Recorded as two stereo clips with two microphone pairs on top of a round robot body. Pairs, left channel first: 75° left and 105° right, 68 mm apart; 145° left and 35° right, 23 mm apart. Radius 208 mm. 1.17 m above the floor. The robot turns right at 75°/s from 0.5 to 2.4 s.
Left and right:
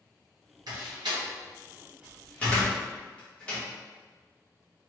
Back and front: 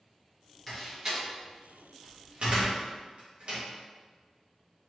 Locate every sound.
0.7 s a door slam: 130° right, 1.3 m; by 3.6 s straight ahead, 1.3 m